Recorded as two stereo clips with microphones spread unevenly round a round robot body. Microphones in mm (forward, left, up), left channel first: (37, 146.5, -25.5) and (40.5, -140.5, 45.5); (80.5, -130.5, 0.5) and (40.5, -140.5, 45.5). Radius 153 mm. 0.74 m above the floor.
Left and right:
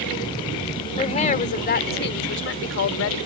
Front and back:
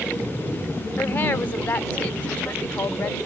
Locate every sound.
1.0 s a woman speaking: 25° left; by 3.2 s 55° left